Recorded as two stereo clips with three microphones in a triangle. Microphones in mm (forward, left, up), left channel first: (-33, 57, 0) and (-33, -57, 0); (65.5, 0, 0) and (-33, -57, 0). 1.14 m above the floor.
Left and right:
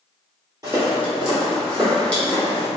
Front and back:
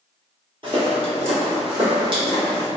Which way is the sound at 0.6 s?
140° right.